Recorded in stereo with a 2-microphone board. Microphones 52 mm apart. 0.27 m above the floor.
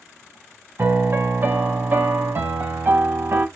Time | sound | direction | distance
0.8 | a piano | 40° right (ahead or behind) | 1.1 m